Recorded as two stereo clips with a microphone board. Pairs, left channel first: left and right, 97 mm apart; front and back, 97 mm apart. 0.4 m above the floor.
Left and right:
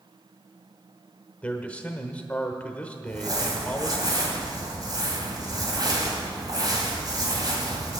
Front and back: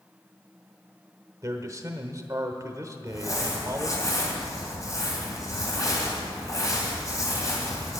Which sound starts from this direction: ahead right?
Crumpling, at 3.1 s.